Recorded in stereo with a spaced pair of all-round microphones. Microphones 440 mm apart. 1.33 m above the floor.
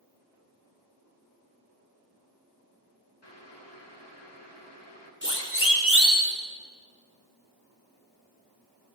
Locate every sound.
3.2 s boiling: 65° left (ahead or behind), 3.5 m
5.2 s a siren: 25° left (ahead or behind), 4.5 m; by 6.3 s 35° left (ahead or behind), 5 m